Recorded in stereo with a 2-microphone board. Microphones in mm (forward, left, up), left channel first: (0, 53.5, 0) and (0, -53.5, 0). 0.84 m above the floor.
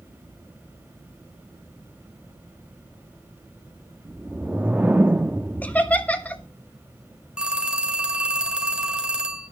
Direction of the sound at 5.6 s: 15° left (ahead or behind).